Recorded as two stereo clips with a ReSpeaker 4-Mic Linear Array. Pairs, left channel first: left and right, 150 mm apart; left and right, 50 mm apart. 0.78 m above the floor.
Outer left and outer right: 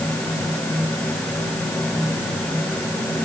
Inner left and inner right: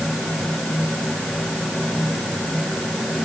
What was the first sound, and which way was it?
Only background noise.